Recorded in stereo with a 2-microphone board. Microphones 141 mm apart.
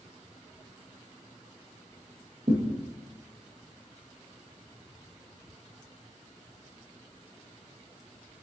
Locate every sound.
2.5 s a thud: 45° right (ahead or behind), 1.6 m